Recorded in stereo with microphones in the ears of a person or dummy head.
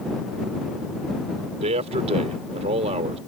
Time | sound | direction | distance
1.6 | a man speaking | 40° right (ahead or behind) | ?